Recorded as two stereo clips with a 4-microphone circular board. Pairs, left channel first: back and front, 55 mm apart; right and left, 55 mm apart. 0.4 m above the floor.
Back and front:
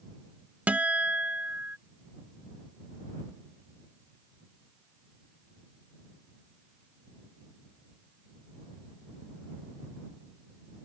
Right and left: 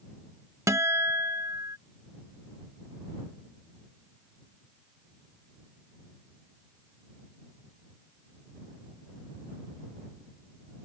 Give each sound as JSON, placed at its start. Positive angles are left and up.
{"t": 0.7, "sound": "a guitar", "azimuth_deg": 65}